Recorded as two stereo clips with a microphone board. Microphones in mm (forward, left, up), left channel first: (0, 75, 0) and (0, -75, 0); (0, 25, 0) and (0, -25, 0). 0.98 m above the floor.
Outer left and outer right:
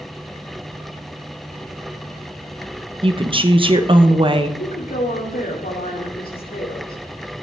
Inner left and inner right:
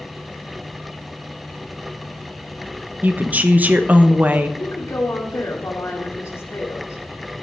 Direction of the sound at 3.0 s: 35° right (ahead or behind).